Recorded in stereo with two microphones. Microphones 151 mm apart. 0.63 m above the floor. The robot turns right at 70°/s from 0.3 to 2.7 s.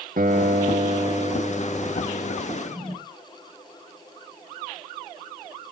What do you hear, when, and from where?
0.2 s a guitar: 100° right, 1.0 m; by 2.4 s 50° left, 1.0 m
2.5 s a drawer: 35° right (ahead or behind), 8.5 m; by 3.0 s 45° right (ahead or behind), 8.5 m